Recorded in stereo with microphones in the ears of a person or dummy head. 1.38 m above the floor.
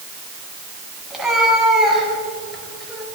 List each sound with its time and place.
1.1 s a cat meowing: 5° right (ahead or behind), 4.5 m; by 3.0 s 5° left (ahead or behind), 3.5 m